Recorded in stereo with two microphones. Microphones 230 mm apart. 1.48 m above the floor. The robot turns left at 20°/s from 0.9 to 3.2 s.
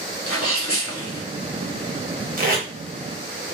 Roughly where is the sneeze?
Left.